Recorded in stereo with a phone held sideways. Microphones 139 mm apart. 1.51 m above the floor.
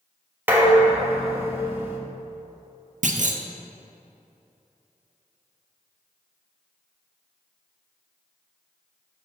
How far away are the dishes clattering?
About 1.2 m.